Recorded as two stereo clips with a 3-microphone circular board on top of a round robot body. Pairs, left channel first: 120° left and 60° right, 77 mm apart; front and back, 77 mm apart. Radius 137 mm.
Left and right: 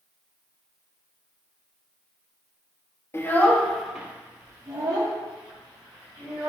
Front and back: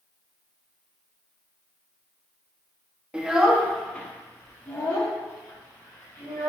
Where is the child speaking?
115° left, 0.7 m; by 6.5 s 45° right, 1.6 m.